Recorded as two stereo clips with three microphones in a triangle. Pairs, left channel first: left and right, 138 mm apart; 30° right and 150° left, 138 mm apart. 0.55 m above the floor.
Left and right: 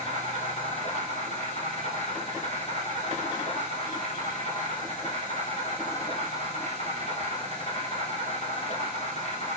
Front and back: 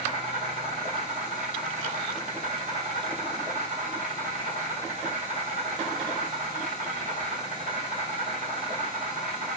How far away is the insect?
About 5 m.